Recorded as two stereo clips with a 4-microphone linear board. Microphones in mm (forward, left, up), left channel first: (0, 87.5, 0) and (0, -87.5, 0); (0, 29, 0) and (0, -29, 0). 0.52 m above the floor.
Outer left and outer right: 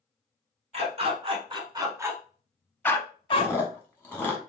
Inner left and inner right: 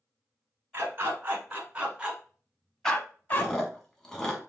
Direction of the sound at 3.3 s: 10° left (ahead or behind).